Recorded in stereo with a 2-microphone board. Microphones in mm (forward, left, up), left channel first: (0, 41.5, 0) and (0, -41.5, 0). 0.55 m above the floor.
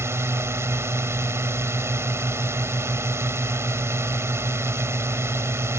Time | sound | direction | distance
0.0 | a drone | 35° right (ahead or behind) | ?